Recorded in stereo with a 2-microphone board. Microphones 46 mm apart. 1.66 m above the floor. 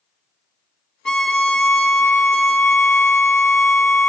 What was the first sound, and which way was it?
A violin, 15° left (ahead or behind).